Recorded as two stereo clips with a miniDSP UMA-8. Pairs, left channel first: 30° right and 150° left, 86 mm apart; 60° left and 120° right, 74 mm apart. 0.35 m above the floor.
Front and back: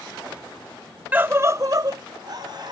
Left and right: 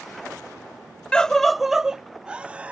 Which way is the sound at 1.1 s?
115° left.